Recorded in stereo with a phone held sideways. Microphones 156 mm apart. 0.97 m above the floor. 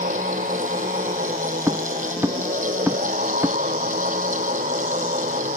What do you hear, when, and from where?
0.0 s a fan: 55° right (ahead or behind)
1.7 s footsteps: 15° right (ahead or behind); by 3.6 s 10° right (ahead or behind)